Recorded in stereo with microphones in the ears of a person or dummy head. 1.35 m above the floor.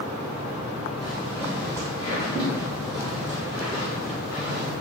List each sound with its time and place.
1.0 s footsteps: 10° left (ahead or behind), 1.5 m; by 4.7 s 30° left (ahead or behind), 3.5 m